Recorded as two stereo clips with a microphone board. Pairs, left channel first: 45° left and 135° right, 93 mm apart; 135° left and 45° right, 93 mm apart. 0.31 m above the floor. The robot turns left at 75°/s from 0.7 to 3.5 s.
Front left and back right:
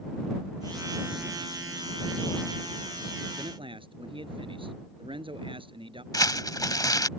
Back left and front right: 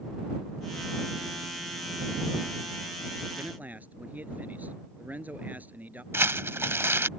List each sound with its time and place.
3.4 s a man speaking: 105° right; by 6.0 s 115° right
6.1 s crumpling: 10° left